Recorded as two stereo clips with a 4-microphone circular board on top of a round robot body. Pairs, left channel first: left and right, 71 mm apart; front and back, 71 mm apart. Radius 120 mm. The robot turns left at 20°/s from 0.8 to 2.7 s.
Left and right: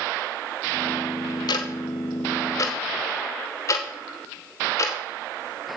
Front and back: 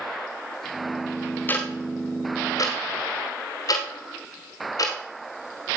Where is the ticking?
65° left, 1.0 m; by 5.0 s 40° left, 1.0 m.